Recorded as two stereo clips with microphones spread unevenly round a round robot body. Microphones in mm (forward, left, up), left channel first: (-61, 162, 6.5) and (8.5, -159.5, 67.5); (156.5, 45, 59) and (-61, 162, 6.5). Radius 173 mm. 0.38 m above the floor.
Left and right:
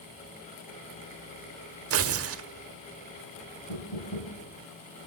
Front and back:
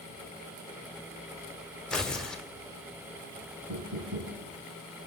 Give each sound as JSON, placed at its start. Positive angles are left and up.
{"t": 1.9, "sound": "tearing paper", "azimuth_deg": -125, "distance_m": 1.5}
{"t": 3.7, "sound": "knocking", "azimuth_deg": 125, "distance_m": 8.5}